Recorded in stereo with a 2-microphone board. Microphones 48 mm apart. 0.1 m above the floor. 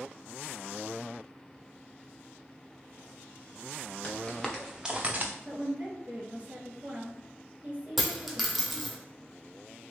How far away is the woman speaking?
About 1.6 m.